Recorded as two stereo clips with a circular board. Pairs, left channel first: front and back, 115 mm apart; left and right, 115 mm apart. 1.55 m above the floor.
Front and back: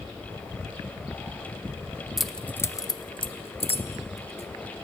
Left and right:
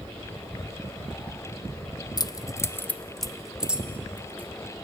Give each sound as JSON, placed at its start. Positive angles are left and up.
{"t": 2.2, "sound": "keys jangling", "azimuth_deg": 95, "distance_m": 0.6}